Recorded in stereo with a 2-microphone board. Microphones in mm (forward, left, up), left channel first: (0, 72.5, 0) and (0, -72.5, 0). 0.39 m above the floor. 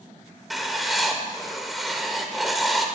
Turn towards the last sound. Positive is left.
turn(degrees=0)  # may be behind; listen again after turning